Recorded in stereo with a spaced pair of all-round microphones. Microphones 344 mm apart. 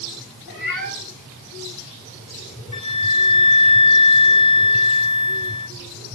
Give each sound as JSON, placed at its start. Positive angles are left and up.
{"t": 0.5, "sound": "a cat meowing", "side_deg": 65, "distance_m": 4.5}
{"t": 2.7, "sound": "a flute", "side_deg": 55, "distance_m": 1.2}